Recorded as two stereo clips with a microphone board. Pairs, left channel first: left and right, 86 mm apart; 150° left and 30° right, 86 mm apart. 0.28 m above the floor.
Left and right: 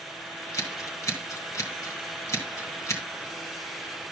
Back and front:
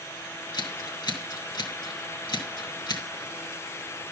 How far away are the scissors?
About 3 m.